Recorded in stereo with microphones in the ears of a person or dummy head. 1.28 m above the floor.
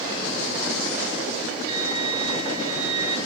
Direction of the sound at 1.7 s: 15° right (ahead or behind).